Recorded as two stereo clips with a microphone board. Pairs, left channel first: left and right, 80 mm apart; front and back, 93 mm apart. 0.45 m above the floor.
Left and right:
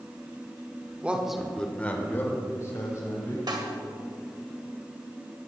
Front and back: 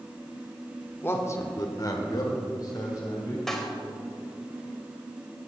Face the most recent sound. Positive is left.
turn(degrees=-85)